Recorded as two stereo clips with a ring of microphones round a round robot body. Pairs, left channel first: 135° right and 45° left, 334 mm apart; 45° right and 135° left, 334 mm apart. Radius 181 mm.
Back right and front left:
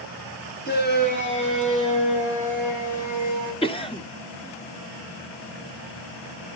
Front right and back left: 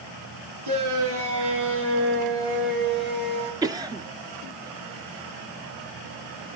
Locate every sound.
0.7 s a shout: 160° left, 8 m; by 3.5 s straight behind, 11 m
3.6 s a cough: 170° right, 1.4 m